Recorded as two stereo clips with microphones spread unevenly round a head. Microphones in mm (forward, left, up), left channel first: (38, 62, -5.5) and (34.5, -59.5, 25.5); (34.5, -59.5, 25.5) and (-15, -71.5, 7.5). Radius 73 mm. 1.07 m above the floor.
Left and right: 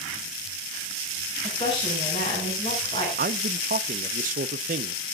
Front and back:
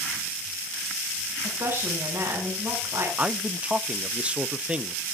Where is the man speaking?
120° right, 0.7 m.